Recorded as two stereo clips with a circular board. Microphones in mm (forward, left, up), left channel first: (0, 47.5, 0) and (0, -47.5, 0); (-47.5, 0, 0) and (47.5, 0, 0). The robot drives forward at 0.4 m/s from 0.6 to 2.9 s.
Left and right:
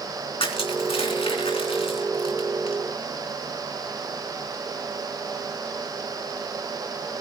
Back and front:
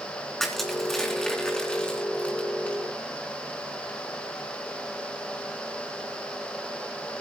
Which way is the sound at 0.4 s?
95° left.